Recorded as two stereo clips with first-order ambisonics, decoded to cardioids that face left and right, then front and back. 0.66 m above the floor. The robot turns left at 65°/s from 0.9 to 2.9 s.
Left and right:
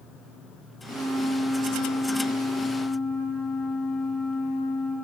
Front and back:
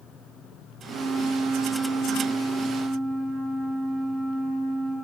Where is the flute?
155° right, 1.3 m; by 5.0 s 75° left, 1.3 m.